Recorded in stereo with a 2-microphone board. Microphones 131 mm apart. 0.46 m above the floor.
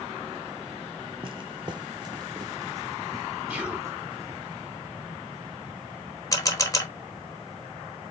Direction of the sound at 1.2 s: 45° right (ahead or behind).